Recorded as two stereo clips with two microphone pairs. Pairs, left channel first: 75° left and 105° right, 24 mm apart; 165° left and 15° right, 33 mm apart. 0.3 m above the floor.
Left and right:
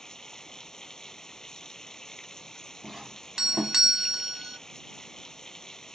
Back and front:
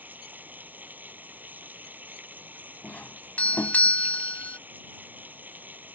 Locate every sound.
0.0 s running water: 10° left
2.8 s a doorbell: 170° right